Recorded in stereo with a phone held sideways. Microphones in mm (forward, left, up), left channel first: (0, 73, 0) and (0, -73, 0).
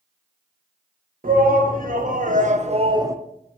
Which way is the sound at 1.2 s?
75° right (ahead or behind).